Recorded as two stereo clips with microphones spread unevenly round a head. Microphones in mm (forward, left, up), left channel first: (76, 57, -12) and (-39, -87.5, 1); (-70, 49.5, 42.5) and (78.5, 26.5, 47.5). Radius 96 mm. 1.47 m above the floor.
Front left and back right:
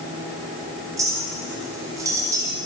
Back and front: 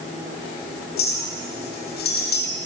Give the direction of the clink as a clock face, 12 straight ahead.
7 o'clock.